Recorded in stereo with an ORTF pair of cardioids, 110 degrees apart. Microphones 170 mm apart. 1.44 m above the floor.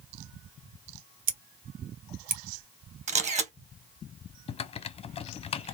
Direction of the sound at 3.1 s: 40° right.